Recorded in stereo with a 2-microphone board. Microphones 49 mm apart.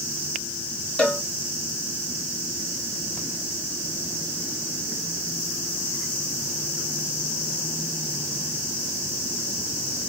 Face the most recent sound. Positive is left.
turn(degrees=25)  # may be behind; listen again after turning